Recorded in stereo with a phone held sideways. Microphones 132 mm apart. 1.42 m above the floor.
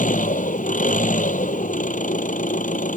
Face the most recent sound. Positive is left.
turn(degrees=85)